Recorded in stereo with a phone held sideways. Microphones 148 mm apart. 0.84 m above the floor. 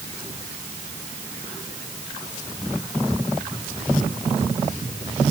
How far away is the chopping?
I don't hear chopping.